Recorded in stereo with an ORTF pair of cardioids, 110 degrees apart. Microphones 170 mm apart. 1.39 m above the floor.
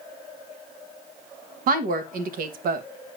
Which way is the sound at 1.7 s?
65° right.